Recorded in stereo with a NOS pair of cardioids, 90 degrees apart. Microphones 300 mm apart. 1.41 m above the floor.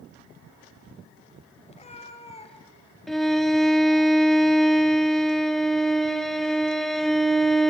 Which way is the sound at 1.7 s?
20° left.